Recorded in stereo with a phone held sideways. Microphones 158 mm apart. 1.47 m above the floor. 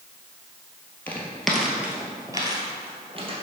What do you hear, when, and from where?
1.1 s footsteps: 10° left (ahead or behind), 1.6 m; by 3.3 s 35° right (ahead or behind), 2 m